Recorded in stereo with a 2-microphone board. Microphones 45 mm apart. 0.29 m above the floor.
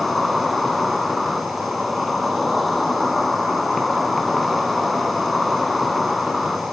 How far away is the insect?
About 1.3 m.